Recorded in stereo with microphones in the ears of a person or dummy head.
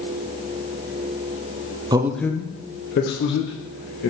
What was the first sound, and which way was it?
A man speaking, 25° right (ahead or behind).